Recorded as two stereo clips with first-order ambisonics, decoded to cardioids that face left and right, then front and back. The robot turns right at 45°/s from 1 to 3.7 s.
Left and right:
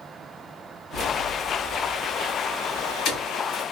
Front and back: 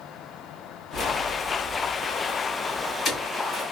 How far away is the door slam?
No door slam in this recording.